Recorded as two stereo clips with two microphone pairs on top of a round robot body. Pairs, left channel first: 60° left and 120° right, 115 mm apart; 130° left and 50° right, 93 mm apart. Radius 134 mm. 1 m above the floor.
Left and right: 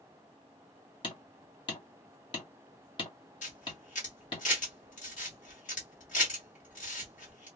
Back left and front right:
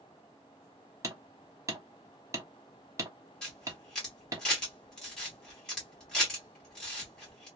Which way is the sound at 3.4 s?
50° left.